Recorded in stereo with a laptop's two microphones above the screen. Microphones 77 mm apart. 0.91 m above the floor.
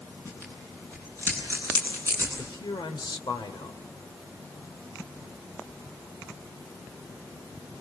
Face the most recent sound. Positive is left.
turn(degrees=85)